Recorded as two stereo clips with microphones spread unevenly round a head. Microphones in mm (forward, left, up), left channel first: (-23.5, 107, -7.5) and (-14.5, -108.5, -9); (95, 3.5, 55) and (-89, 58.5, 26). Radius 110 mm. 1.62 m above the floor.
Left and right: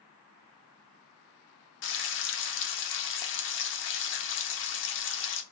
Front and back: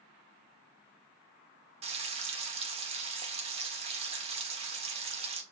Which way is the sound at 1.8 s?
100° left.